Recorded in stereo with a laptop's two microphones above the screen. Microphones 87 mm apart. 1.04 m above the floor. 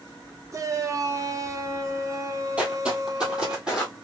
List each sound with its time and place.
0.5 s a shout: 35° right (ahead or behind), 0.5 m
2.6 s footsteps: 15° right (ahead or behind), 1.3 m; by 4.0 s 10° right (ahead or behind), 1.9 m